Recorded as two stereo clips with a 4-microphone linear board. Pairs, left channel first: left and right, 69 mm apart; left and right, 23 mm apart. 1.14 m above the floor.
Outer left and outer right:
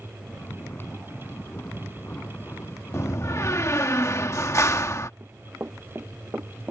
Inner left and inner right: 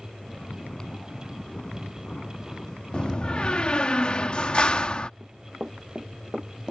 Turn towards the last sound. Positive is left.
turn(degrees=-35)  # may be behind; listen again after turning